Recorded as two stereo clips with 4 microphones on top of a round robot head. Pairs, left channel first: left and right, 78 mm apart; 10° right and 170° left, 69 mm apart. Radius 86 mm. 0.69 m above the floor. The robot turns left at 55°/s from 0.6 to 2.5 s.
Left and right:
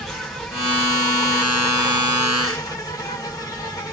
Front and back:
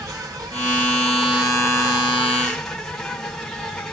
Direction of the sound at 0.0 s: 175° left.